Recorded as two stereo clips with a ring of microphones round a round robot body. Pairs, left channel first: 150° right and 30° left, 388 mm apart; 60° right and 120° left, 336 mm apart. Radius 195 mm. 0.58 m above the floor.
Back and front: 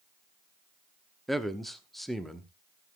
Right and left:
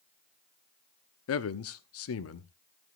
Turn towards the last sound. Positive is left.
turn(degrees=-60)